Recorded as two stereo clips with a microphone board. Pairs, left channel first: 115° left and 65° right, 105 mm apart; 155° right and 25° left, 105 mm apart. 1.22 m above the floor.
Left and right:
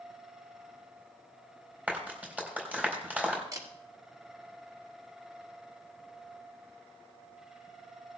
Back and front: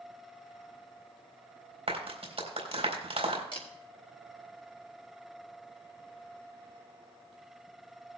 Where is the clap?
10° left, 4 m.